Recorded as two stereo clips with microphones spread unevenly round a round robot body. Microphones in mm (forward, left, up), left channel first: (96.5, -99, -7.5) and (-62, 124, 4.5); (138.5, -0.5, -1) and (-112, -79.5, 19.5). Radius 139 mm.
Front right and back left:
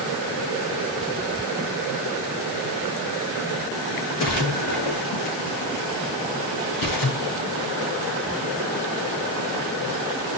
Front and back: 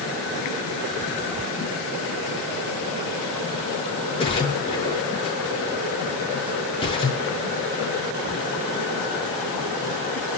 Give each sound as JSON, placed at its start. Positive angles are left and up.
{"t": 4.2, "sound": "a splash", "azimuth_deg": -55, "distance_m": 7.0}